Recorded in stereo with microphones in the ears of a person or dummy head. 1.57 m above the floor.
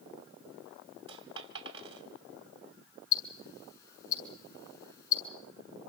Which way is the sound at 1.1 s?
30° right (ahead or behind).